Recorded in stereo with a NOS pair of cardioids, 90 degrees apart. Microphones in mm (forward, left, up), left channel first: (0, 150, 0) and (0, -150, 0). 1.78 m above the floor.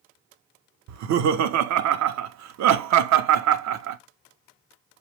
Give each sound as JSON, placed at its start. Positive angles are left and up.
{"t": 0.9, "sound": "laughter", "azimuth_deg": -70, "distance_m": 0.5}